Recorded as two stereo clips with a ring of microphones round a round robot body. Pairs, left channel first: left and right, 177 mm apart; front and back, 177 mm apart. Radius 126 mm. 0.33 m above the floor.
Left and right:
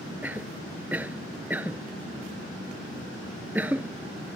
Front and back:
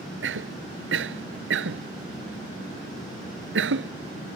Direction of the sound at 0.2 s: 175° right.